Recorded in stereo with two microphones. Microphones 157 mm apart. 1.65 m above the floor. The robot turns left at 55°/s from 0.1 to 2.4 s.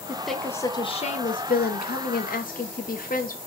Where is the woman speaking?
170° right, 0.7 m; by 3.4 s 60° left, 0.7 m.